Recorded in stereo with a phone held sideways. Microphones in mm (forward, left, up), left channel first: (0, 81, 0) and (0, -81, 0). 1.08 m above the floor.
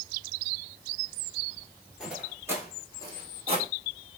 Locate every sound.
2.0 s footsteps: 5° right (ahead or behind), 1.1 m; by 3.7 s 40° right (ahead or behind), 1.4 m